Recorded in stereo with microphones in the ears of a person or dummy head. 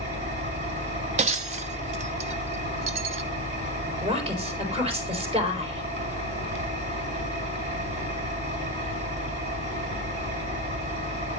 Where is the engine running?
45° right (ahead or behind), 3 m.